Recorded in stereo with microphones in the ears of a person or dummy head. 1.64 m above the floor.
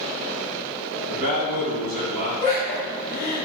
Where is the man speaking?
55° right (ahead or behind), 0.8 m.